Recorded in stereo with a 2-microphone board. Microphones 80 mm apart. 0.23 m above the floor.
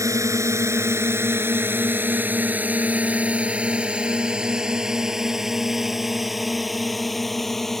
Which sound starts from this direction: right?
A drone, at 0.0 s.